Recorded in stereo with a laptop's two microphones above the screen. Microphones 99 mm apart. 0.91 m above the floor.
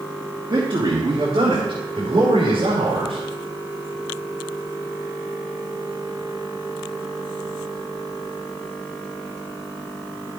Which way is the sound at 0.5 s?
50° right (ahead or behind).